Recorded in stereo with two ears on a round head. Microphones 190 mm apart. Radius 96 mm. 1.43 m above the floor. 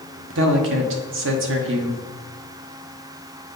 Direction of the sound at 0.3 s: 65° right (ahead or behind).